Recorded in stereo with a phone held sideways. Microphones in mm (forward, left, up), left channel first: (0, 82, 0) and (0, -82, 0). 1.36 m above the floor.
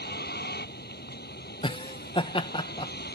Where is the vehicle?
85° left.